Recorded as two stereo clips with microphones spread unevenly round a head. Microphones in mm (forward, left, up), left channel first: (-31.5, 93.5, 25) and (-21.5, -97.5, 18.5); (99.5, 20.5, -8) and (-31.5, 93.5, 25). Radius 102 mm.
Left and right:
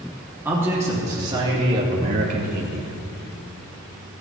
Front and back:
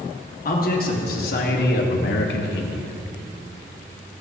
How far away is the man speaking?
About 3 m.